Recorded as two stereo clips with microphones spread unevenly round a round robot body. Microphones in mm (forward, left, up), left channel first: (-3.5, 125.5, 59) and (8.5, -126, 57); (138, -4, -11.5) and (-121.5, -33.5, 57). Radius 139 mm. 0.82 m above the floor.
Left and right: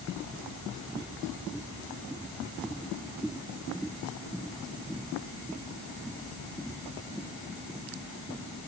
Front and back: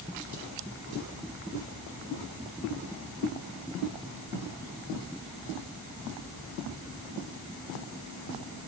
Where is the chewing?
I don't hear chewing.